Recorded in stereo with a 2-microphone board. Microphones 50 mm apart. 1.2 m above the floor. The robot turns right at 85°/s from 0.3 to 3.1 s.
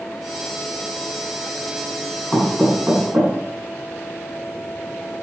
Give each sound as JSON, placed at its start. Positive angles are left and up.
{"t": 2.3, "sound": "knocking", "side_deg": 35, "distance_m": 9.0}